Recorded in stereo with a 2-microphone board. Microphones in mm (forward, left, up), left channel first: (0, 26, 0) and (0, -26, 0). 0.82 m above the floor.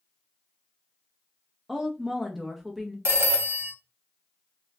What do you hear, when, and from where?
1.7 s a woman speaking: 5° right (ahead or behind), 0.7 m
3.0 s a phone ringing: 50° right (ahead or behind), 0.8 m